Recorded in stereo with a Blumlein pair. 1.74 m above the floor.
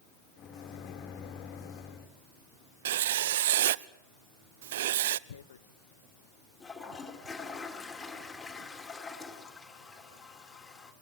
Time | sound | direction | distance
0.4 | a microwave | 35° left | 3 m
2.9 | writing | 60° right | 0.6 m
5.3 | tearing paper | 65° left | 1.1 m
6.6 | a toilet flushing | 10° left | 4 m